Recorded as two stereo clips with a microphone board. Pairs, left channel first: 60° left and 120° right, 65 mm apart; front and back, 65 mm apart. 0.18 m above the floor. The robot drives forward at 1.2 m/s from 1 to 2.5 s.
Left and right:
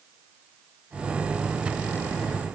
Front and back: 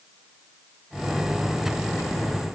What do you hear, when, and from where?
Only background noise.